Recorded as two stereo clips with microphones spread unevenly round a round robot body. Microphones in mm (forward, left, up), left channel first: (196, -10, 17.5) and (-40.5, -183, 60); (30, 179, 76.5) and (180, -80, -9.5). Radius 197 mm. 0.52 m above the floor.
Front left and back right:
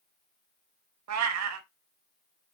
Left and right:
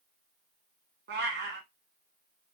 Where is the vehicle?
I don't hear a vehicle.